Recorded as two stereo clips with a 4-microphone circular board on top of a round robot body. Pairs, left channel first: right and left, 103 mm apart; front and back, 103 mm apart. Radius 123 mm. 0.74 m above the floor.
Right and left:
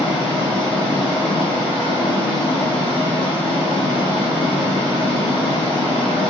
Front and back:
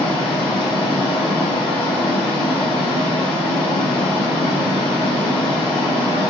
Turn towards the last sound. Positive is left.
turn(degrees=-50)